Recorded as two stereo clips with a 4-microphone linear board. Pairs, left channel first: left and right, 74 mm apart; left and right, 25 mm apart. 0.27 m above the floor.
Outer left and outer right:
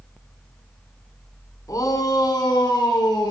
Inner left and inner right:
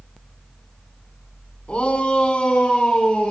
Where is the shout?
50° left (ahead or behind), 2.5 m; by 3.3 s 65° left (ahead or behind), 3.5 m.